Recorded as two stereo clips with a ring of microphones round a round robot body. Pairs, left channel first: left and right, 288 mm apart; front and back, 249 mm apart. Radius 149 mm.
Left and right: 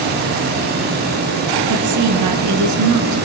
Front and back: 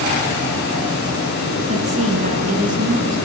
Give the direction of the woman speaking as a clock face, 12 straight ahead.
4 o'clock.